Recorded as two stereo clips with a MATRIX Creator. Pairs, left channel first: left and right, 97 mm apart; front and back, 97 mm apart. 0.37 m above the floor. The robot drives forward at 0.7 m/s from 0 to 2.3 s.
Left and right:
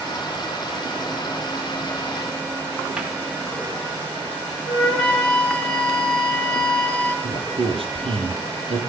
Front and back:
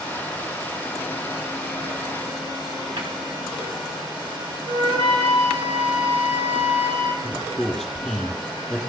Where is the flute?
165° left, 3.5 m.